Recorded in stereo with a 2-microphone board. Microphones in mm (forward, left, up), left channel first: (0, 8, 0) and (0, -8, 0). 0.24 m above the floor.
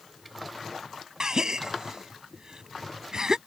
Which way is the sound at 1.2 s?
50° right (ahead or behind).